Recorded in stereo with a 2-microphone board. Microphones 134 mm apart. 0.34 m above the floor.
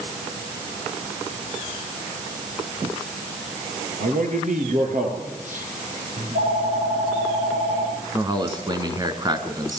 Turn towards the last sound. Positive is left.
turn(degrees=-30)  # may be behind; listen again after turning